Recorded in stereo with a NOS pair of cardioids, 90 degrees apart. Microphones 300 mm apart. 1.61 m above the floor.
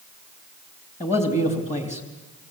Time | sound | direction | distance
1.0 | a man speaking | 20° left | 3.5 m